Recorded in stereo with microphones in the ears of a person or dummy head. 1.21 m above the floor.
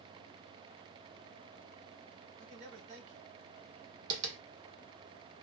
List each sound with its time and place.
2.4 s a man speaking: 40° right (ahead or behind), 1.4 m
4.1 s tapping: 40° right (ahead or behind), 1.3 m